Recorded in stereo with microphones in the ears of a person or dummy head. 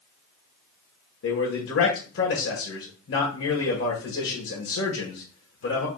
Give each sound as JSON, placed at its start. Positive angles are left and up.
{"t": 1.2, "sound": "a man speaking", "side_deg": 70, "distance_m": 1.2}